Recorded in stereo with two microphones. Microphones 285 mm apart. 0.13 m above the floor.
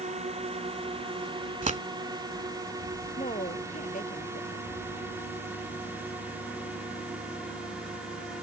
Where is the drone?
20° right (ahead or behind); by 8.4 s 5° right (ahead or behind).